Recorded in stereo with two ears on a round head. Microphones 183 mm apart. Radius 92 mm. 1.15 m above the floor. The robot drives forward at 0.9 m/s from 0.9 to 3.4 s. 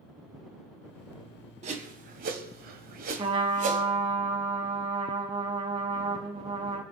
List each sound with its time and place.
1.6 s a whoosh: 35° right (ahead or behind), 1.6 m; by 3.9 s 40° right (ahead or behind), 1.4 m
3.2 s a trumpet: 25° right (ahead or behind), 1.5 m